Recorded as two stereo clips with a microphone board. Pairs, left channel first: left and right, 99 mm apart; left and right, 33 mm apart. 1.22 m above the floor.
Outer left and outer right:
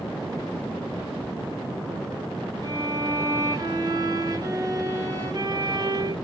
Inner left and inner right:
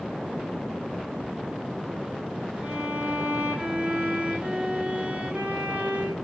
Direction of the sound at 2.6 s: 40° right (ahead or behind).